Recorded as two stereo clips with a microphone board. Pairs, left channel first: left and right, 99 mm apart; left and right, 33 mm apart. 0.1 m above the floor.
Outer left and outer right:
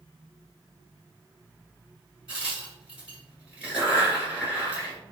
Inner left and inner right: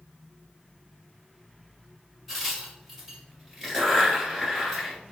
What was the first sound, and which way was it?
A crack, 10° right (ahead or behind).